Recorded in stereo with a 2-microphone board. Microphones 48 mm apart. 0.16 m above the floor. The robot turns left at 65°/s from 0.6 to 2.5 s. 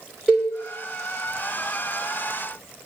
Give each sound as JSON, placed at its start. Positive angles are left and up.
{"t": 0.3, "sound": "a cowbell", "side_deg": -10, "distance_m": 3.5}